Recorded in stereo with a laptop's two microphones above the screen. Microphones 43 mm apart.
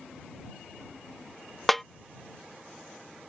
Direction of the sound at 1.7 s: 5° left (ahead or behind).